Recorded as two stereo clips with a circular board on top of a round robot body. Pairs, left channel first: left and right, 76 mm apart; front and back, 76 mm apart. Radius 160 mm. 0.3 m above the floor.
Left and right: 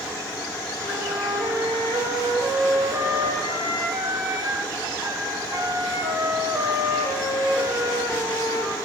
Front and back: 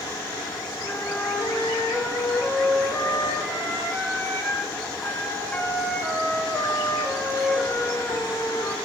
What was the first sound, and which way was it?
A flute, 75° right.